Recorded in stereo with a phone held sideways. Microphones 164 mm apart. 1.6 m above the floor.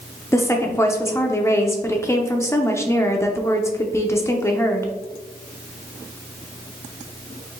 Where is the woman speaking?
15° left (ahead or behind), 0.6 m.